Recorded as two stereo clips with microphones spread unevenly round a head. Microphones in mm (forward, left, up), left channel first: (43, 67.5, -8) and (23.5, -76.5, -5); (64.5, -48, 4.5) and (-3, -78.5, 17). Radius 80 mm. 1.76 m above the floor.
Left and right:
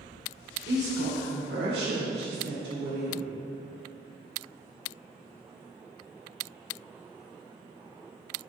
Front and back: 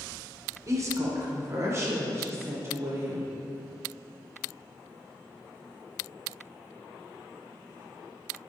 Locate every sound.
0.7 s a woman speaking: 115° right, 1.7 m; by 3.3 s 105° right, 3 m